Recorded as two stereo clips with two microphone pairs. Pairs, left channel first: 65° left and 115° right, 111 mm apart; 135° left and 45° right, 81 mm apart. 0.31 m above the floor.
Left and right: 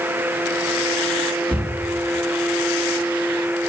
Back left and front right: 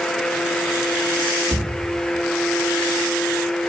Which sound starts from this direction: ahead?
A cupboard door, at 1.5 s.